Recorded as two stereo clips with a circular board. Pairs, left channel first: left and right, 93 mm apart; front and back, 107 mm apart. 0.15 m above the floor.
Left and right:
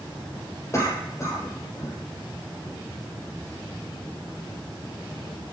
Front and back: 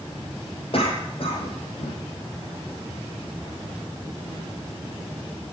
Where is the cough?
30° left, 5 m.